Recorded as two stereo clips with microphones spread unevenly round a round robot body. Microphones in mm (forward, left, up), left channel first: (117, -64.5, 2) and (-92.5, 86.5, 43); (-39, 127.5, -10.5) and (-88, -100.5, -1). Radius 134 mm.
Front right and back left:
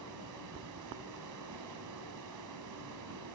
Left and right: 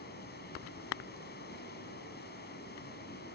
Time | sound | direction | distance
0.0 | running water | 125° left | 4.5 m